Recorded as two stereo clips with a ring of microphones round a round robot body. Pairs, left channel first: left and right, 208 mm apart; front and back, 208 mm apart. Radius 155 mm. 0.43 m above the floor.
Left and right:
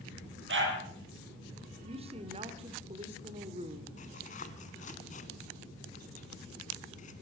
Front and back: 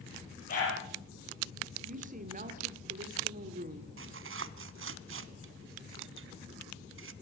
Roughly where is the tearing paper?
Behind left.